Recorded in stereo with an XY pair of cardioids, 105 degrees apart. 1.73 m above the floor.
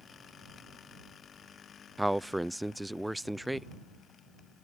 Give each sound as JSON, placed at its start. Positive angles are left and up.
{"t": 2.0, "sound": "a man speaking", "azimuth_deg": -5}